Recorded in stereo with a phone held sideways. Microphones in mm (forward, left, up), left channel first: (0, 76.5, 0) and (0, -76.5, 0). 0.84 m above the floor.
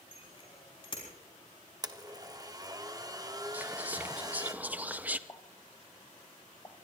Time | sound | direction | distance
0.1 | a bicycle bell | 40° left (ahead or behind) | 5.5 m
1.8 | a blender | 25° right (ahead or behind) | 1.0 m
3.5 | whispering | 10° right (ahead or behind) | 0.7 m
5.3 | a pop | 25° left (ahead or behind) | 1.0 m